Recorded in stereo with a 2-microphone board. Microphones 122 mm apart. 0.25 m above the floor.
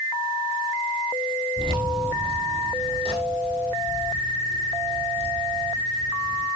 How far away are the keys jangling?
About 4.5 m.